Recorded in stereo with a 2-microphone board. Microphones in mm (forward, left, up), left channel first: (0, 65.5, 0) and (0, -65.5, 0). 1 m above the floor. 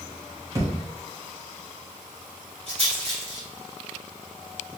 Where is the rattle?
50° right (ahead or behind), 1.9 m.